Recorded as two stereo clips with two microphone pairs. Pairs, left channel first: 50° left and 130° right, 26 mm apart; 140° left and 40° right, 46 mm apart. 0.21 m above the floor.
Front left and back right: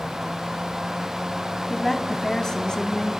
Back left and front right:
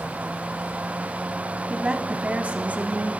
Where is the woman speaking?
20° right, 1.1 m; by 3.1 s straight ahead, 1.7 m.